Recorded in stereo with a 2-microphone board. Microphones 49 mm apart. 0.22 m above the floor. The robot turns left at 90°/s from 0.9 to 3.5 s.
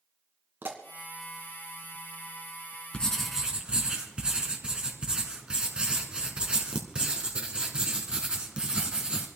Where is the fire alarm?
I don't hear a fire alarm.